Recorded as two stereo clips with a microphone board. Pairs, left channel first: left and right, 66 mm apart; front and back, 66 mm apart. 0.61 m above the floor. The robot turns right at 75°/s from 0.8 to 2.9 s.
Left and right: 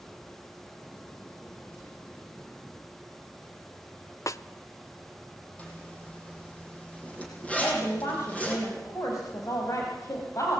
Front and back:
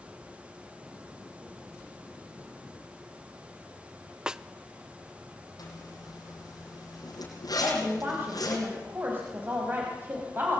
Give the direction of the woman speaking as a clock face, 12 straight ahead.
8 o'clock.